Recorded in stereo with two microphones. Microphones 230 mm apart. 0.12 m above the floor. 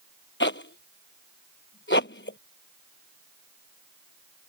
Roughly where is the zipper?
Left.